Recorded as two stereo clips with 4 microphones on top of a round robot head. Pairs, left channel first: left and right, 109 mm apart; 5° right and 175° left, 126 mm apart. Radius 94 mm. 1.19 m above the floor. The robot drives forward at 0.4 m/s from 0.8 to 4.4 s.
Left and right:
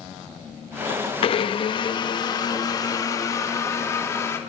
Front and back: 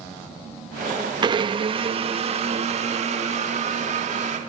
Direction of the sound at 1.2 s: 125° left.